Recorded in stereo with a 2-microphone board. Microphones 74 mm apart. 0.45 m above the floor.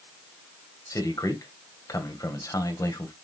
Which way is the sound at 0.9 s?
45° left (ahead or behind).